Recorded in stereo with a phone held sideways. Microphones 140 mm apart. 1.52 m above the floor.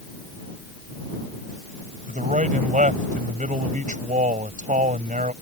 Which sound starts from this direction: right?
A man speaking, at 2.1 s.